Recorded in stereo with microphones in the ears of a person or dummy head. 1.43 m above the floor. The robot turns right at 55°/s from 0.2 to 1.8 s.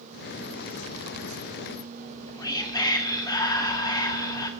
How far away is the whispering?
About 0.6 m.